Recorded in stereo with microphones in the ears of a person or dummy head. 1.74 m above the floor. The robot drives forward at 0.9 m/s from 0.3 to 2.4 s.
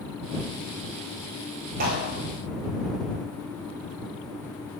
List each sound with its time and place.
1.8 s a clap: 45° right (ahead or behind), 9 m